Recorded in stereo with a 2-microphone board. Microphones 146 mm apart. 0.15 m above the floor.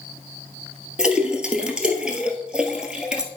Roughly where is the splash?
Centre.